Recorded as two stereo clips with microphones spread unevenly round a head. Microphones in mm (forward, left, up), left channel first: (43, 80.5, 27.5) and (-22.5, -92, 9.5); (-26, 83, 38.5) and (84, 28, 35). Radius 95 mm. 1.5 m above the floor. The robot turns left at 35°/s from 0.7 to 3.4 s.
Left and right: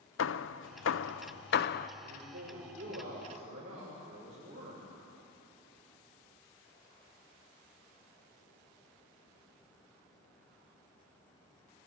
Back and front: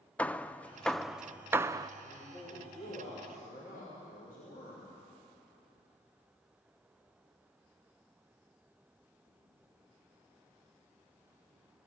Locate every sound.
0.2 s hammering: 75° left, 0.5 m; by 1.9 s 35° left, 0.5 m
2.0 s a man speaking: 130° right, 6.5 m; by 4.8 s 175° right, 6.5 m